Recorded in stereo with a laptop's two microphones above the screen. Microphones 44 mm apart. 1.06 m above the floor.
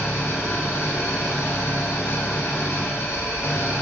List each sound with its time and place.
0.0 s an engine running: 75° left (ahead or behind), 1.5 m